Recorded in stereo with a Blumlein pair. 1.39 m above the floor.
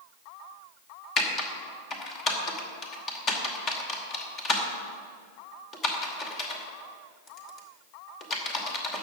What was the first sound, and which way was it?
Typing on a keyboard, 25° left.